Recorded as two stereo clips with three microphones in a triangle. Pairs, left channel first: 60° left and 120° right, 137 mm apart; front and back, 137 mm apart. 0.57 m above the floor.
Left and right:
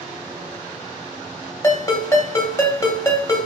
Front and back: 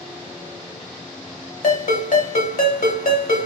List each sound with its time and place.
1.6 s a ringtone: 10° right, 0.9 m